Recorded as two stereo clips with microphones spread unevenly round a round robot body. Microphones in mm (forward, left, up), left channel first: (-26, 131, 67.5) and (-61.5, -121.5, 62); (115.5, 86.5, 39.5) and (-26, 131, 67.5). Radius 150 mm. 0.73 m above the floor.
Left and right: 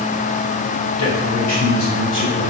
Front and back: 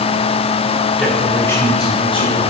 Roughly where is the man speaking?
Left.